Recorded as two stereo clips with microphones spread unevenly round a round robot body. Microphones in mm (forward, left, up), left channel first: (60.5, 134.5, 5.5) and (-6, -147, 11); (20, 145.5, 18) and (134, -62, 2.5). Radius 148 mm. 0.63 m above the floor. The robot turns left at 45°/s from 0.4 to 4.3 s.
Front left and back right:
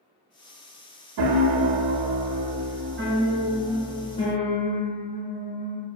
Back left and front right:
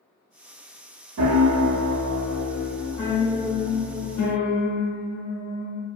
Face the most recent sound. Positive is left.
turn(degrees=140)